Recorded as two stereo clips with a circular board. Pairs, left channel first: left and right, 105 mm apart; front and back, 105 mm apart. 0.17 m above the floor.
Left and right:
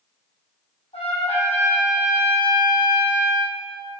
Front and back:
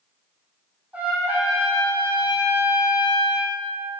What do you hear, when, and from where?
0.9 s a trumpet: 105° left, 4 m